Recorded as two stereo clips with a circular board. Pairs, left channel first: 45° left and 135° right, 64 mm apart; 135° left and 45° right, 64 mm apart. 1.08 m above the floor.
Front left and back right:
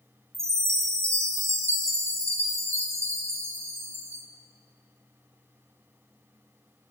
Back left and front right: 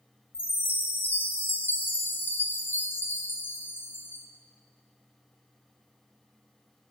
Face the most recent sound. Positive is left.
turn(degrees=-170)